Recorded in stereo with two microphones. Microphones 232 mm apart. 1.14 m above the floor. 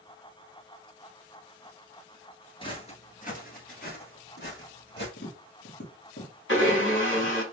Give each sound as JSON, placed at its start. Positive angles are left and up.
{"t": 2.6, "sound": "footsteps", "side_deg": 20, "distance_m": 1.1}
{"t": 5.2, "sound": "tapping", "side_deg": 50, "distance_m": 1.4}
{"t": 6.5, "sound": "a blender", "side_deg": 55, "distance_m": 1.5}